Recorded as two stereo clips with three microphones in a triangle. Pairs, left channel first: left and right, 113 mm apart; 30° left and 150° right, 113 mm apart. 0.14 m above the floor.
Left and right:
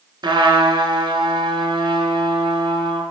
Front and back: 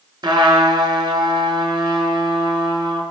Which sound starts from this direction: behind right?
A trumpet, at 0.2 s.